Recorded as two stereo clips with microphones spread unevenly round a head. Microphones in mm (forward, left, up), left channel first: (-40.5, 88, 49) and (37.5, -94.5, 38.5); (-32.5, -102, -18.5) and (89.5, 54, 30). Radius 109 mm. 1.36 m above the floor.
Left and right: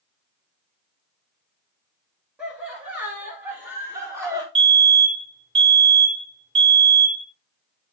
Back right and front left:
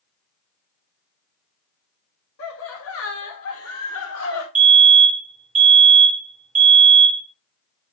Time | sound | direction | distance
2.4 | laughter | 150° right | 2 m
4.5 | a fire alarm | 5° right | 3.5 m